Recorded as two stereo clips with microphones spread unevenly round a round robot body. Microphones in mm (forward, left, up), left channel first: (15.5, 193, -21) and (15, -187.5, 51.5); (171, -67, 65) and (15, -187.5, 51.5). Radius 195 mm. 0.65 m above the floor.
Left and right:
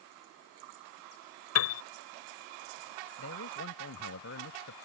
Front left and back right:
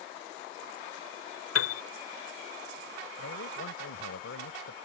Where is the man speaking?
30° left.